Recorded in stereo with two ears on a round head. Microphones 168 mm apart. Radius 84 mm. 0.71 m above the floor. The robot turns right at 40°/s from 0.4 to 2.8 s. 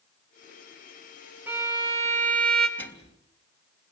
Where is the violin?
170° right, 2.5 m; by 2.7 s 120° right, 2.5 m.